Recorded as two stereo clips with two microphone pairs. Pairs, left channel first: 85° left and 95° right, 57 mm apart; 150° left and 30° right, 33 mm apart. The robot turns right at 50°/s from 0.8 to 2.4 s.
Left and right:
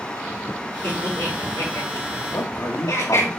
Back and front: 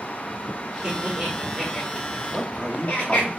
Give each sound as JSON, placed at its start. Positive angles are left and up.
{"t": 0.8, "sound": "laughter", "azimuth_deg": 30, "distance_m": 4.0}
{"t": 2.3, "sound": "a man speaking", "azimuth_deg": 60, "distance_m": 2.0}